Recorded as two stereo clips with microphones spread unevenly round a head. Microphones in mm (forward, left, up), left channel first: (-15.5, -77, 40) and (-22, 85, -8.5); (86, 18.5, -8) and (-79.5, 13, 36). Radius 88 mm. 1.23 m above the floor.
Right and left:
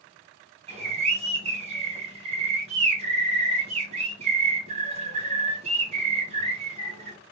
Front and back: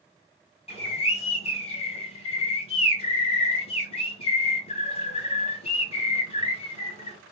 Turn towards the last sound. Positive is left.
turn(degrees=50)